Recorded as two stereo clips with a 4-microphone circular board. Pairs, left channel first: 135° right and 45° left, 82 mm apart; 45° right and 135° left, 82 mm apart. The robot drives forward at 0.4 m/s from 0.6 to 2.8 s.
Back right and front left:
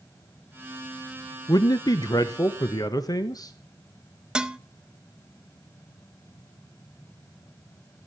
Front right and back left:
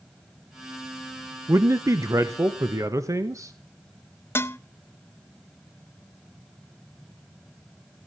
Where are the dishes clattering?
25° right, 0.7 m.